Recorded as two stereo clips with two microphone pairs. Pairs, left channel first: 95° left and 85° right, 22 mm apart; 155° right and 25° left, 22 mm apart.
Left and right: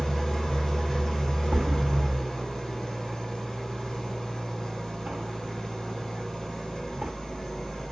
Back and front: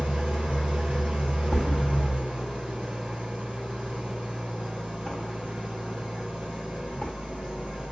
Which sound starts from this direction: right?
A thud, at 1.5 s.